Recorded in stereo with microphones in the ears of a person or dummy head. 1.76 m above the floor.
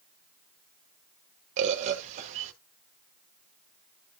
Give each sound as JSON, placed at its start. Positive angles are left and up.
{"t": 1.6, "sound": "a bird", "side_deg": -40, "distance_m": 1.1}